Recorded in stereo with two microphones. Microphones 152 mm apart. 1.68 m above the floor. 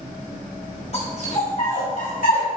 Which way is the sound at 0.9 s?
45° left (ahead or behind).